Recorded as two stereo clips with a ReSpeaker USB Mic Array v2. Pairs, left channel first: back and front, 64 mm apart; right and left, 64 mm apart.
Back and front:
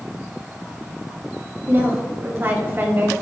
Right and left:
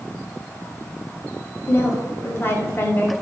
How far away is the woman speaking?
About 1.8 m.